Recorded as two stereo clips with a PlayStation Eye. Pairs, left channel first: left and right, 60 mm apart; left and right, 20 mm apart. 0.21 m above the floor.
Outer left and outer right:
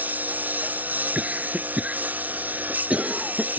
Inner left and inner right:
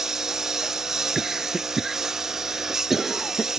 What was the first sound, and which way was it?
A lawn mower, 30° right (ahead or behind).